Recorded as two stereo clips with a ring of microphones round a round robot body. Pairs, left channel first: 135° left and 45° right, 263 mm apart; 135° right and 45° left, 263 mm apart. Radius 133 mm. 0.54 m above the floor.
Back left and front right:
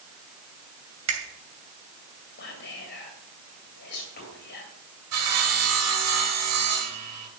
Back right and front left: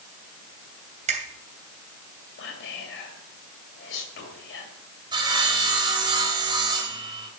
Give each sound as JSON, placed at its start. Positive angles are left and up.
{"t": 1.1, "sound": "a finger snap", "azimuth_deg": -20, "distance_m": 2.5}
{"t": 2.4, "sound": "whispering", "azimuth_deg": -175, "distance_m": 2.5}
{"t": 5.1, "sound": "sawing", "azimuth_deg": -25, "distance_m": 3.0}